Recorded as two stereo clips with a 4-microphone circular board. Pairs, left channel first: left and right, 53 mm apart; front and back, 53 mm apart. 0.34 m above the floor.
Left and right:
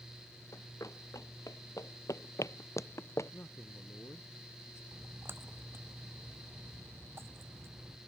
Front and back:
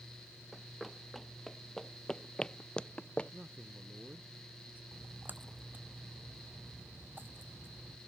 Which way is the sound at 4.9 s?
130° right.